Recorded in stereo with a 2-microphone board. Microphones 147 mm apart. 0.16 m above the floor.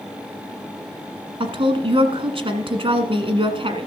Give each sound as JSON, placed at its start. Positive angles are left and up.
{"t": 1.4, "sound": "a woman speaking", "side_deg": -40, "distance_m": 1.4}